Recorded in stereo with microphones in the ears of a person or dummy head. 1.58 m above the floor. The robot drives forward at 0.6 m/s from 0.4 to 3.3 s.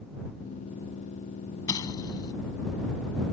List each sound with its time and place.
1.7 s an explosion: 25° left (ahead or behind)